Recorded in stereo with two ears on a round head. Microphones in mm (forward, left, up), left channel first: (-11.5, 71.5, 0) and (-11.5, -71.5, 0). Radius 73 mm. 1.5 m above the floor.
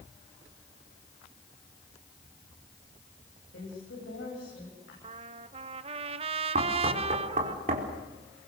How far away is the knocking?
About 4.5 m.